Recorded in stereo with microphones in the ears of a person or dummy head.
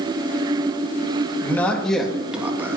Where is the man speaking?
10° left (ahead or behind), 3 m; by 2.8 s 15° right (ahead or behind), 2.5 m.